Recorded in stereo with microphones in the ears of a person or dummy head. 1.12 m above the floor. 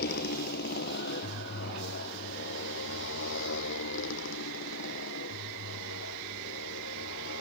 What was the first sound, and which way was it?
A motorcycle, 55° left (ahead or behind).